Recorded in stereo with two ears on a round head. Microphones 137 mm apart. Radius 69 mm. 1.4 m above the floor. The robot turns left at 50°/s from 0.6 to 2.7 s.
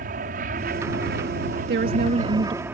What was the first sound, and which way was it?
An aircraft, 60° right.